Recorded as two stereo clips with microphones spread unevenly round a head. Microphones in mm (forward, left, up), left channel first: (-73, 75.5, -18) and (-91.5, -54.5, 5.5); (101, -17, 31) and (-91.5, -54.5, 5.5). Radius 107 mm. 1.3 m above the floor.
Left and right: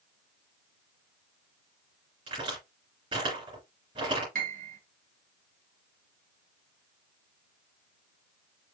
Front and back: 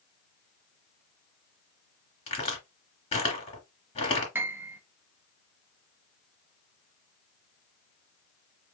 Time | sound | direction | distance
2.3 | a crack | 45° right | 2.5 m
4.3 | a piano | 90° right | 1.4 m